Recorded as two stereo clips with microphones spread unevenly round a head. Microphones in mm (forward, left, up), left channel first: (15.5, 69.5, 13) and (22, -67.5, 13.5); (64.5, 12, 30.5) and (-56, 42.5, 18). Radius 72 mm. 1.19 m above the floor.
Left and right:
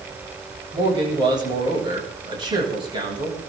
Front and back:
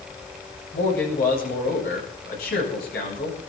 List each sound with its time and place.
0.7 s a man speaking: 30° right, 10 m